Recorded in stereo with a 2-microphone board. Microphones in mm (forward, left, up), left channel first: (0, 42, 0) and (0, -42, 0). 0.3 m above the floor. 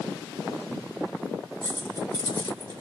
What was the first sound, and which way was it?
Keys jangling, 45° right (ahead or behind).